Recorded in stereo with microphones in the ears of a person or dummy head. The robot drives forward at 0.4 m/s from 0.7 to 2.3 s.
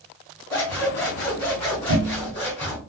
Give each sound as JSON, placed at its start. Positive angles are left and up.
{"t": 0.5, "sound": "scissors", "side_deg": 15, "distance_m": 1.7}